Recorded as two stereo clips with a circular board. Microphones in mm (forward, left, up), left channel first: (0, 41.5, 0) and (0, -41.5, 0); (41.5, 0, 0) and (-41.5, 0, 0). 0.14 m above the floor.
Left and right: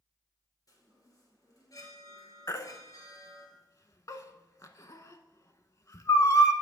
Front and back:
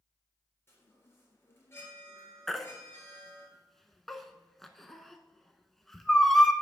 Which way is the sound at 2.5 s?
85° left.